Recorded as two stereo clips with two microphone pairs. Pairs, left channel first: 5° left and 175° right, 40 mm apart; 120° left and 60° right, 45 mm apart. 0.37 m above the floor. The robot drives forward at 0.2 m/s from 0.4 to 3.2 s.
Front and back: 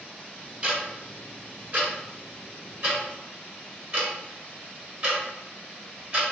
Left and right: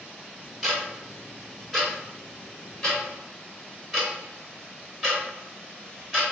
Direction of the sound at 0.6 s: 150° right.